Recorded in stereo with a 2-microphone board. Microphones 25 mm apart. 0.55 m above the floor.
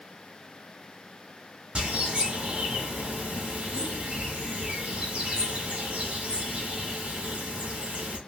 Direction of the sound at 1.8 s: 40° right (ahead or behind).